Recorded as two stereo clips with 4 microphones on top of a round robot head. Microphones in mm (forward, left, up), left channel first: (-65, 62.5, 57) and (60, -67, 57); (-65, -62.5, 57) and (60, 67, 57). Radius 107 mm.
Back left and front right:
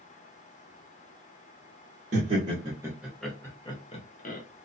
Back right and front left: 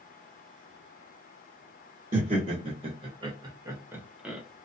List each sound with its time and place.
2.1 s laughter: 5° right, 1.2 m; by 4.4 s 130° left, 1.1 m